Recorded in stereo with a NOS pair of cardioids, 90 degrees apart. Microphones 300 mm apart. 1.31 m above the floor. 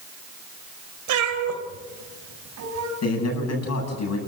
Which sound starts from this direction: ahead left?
A man speaking, at 3.0 s.